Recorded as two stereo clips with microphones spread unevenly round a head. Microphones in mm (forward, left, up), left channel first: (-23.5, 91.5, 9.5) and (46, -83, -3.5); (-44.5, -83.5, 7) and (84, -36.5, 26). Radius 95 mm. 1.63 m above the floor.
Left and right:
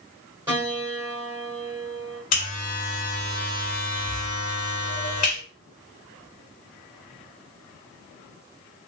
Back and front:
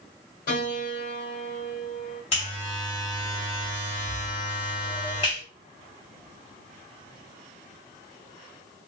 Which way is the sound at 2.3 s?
145° left.